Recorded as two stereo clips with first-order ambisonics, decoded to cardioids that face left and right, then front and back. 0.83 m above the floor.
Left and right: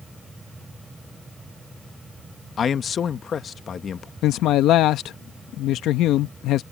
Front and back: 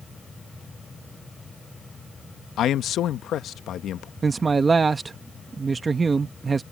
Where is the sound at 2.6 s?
35° left.